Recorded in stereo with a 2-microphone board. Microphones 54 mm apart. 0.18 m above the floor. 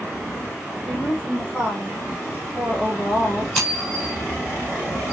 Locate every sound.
0.8 s a woman speaking: 5° left (ahead or behind), 6.5 m
3.5 s scissors: centre (ahead or behind), 4.5 m